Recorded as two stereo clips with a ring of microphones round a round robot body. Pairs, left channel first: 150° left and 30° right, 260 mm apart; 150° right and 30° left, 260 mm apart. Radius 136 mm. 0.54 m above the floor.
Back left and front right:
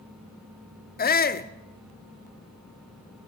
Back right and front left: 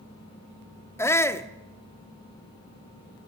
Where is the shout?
135° left, 1.1 m.